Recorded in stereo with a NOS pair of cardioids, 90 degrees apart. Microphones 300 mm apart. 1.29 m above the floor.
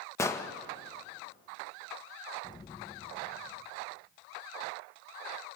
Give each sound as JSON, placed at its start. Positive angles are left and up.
{"t": 0.2, "sound": "an explosion", "azimuth_deg": 10, "distance_m": 1.3}
{"t": 2.4, "sound": "an explosion", "azimuth_deg": 15, "distance_m": 0.7}